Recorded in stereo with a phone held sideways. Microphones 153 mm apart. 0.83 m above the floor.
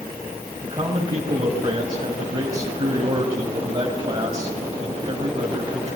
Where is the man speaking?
35° right (ahead or behind), 4.5 m.